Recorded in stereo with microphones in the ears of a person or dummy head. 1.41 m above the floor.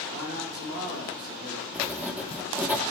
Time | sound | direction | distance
0.1 | a man speaking | 60° right (ahead or behind) | 2.5 m
1.7 | writing | 10° right (ahead or behind) | 0.6 m